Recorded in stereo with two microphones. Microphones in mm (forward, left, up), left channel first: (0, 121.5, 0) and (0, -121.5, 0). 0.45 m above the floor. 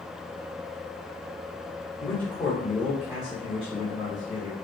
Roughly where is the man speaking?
Centre.